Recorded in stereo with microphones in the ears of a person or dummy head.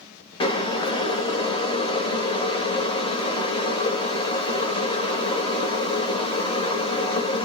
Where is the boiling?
25° left (ahead or behind), 0.5 m.